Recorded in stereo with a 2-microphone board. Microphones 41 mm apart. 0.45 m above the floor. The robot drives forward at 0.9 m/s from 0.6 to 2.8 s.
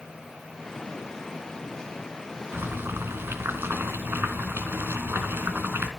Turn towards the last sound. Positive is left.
turn(degrees=-75)  # may be behind; listen again after turning